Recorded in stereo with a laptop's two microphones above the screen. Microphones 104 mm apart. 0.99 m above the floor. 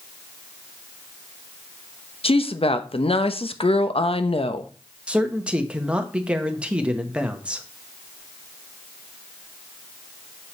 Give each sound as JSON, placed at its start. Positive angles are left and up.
{"t": 2.2, "sound": "a woman speaking", "side_deg": 70, "distance_m": 0.7}
{"t": 5.1, "sound": "a man speaking", "side_deg": -10, "distance_m": 1.2}